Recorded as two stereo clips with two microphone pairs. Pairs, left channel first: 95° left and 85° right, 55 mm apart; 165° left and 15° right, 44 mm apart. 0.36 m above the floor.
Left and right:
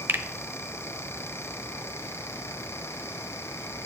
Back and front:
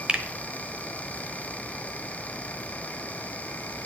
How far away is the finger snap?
About 0.9 m.